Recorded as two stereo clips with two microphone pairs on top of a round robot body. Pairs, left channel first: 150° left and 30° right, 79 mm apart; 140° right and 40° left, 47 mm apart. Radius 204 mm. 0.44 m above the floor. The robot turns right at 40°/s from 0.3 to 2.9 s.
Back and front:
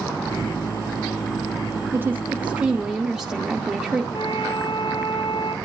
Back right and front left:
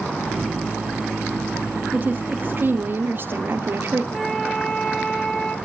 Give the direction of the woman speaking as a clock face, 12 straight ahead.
12 o'clock.